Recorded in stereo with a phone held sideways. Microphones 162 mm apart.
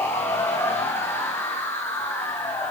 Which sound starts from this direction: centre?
A machine running, at 0.0 s.